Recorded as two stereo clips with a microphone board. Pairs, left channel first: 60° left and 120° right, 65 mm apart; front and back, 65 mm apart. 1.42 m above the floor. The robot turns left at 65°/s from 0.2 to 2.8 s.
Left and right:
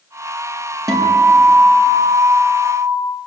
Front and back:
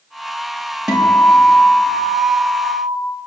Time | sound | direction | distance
0.9 | a guitar | 100° right | 5 m